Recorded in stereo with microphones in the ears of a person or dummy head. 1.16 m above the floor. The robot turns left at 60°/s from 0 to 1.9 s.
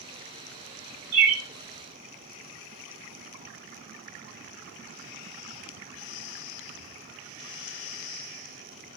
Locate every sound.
1.1 s a bird: 25° right (ahead or behind), 0.7 m